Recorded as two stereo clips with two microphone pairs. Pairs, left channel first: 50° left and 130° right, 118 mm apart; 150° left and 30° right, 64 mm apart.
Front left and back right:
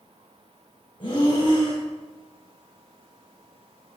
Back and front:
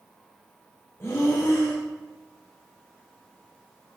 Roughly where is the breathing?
Left.